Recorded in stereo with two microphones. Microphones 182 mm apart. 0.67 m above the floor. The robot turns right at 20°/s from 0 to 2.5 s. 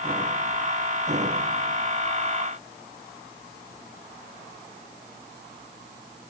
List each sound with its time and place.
Only background noise.